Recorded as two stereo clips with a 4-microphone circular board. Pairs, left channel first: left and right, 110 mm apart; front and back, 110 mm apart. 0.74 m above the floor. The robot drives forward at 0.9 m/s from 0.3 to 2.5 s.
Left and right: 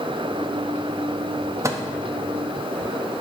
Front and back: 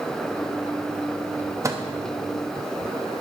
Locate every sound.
1.6 s a microwave: 135° right, 0.7 m; by 1.8 s 145° right, 0.8 m